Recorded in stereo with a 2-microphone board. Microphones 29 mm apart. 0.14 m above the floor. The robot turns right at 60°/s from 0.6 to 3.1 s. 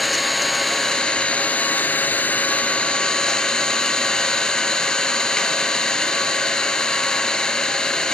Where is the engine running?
5° left, 1.0 m; by 8.1 s 155° left, 1.0 m.